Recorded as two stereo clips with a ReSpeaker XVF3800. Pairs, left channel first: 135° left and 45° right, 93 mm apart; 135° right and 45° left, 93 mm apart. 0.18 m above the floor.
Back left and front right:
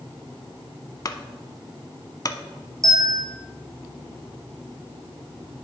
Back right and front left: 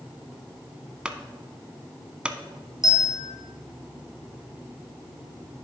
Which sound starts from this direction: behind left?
A clunk, at 1.1 s.